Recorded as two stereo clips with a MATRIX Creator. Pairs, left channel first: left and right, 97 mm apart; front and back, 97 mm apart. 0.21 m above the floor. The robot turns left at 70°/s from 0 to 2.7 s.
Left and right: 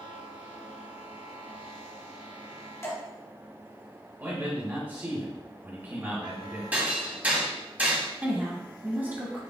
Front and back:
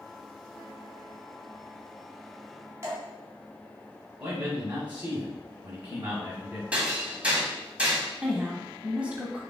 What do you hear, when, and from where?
2.8 s dripping: 135° left, 1.6 m
4.2 s a man speaking: 125° right, 1.7 m
6.7 s hammering: 130° right, 1.3 m
8.2 s a woman speaking: 125° right, 1.2 m